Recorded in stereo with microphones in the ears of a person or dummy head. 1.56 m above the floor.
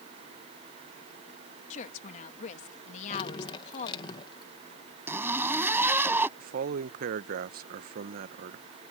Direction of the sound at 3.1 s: 25° left (ahead or behind).